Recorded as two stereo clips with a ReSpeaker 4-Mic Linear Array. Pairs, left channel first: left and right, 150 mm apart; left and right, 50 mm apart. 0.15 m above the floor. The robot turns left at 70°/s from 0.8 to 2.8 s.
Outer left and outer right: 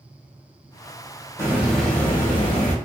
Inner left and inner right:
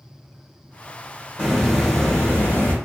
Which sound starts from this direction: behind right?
A hiss, at 1.4 s.